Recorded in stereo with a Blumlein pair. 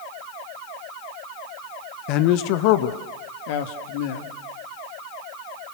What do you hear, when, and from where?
2.1 s a man speaking: 40° left, 1.4 m; by 4.3 s 50° left, 3 m